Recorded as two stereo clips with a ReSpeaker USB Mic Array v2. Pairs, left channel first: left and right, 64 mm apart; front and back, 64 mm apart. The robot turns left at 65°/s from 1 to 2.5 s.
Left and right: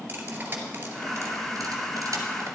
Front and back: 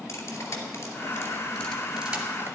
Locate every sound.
0.1 s cutlery clinking: 30° right, 2.5 m; by 2.5 s 130° right, 2.5 m